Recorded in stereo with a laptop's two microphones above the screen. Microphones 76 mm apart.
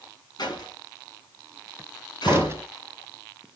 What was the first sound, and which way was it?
A door slam, 60° left (ahead or behind).